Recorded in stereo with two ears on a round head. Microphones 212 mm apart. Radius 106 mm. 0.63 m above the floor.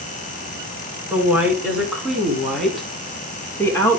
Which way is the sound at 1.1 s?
10° right (ahead or behind).